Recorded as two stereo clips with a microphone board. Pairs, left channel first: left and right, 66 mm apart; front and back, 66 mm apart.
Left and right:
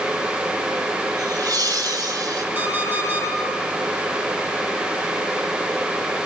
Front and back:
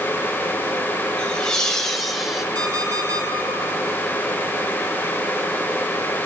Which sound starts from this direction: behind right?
An alarm clock, at 2.5 s.